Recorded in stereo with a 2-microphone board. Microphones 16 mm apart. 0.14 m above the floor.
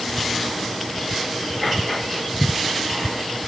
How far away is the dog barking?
No dog barking in this recording.